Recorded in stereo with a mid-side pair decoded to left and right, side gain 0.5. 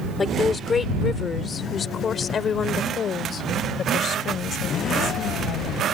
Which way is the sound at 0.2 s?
30° left.